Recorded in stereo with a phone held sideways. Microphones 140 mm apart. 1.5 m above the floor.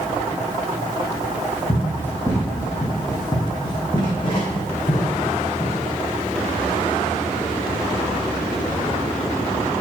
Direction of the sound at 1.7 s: 10° left (ahead or behind).